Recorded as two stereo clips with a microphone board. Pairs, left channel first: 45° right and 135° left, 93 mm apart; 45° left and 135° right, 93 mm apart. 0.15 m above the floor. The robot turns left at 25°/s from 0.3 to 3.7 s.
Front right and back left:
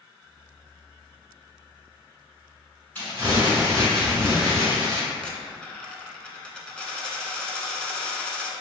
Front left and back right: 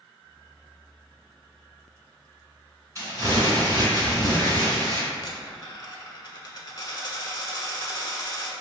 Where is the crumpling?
105° right, 1.9 m; by 5.0 s 125° right, 1.9 m.